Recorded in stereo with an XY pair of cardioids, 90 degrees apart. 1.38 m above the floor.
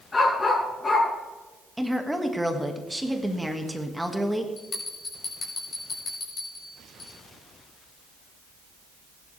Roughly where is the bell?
Ahead left.